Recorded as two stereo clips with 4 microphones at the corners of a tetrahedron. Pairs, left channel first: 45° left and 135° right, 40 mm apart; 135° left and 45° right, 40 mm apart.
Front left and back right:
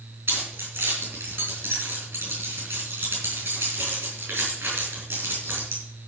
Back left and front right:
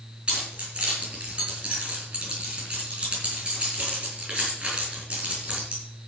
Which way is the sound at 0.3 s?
110° right.